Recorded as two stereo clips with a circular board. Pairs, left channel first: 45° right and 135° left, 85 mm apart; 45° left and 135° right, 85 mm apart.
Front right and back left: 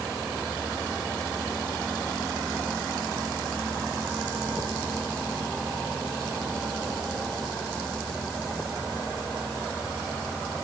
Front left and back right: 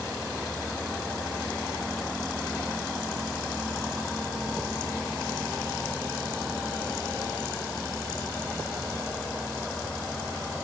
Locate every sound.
Only background noise.